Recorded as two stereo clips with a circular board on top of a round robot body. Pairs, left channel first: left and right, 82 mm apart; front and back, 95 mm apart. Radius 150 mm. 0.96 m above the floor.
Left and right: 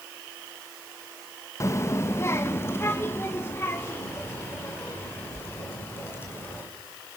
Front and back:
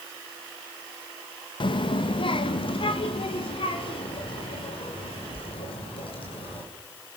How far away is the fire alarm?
No fire alarm in this recording.